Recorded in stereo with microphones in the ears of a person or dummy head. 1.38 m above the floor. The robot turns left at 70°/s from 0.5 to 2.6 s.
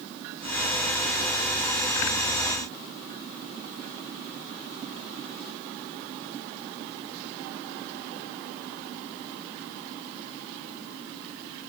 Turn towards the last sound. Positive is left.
No sound to turn to.